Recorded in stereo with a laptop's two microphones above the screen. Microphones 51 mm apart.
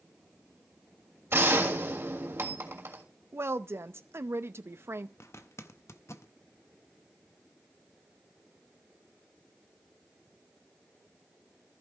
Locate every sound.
1.3 s a gunshot: 55° right (ahead or behind), 3 m
3.3 s a woman speaking: 50° right (ahead or behind), 0.6 m
5.2 s a zipper: 65° left (ahead or behind), 0.7 m